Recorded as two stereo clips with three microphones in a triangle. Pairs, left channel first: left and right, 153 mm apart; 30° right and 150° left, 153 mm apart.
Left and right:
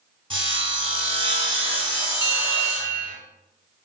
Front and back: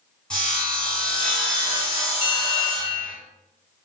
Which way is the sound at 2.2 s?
35° right.